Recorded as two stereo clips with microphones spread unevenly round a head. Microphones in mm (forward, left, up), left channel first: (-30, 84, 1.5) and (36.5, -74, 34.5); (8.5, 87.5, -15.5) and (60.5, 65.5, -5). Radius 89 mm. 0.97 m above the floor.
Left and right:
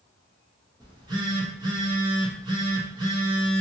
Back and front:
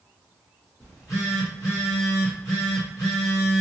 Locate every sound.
0.8 s a phone buzzing: 140° right, 1.0 m